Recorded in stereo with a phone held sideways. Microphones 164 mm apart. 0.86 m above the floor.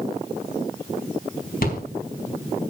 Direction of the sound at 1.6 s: 60° left (ahead or behind).